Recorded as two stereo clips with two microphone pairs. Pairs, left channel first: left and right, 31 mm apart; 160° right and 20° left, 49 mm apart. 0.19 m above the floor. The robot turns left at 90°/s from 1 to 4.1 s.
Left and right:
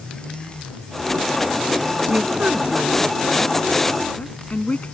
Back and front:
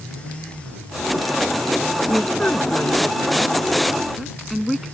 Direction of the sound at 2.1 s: 75° right.